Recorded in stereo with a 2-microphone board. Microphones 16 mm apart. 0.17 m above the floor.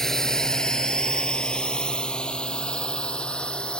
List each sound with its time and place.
0.0 s a drone: 25° left (ahead or behind); by 3.8 s 80° left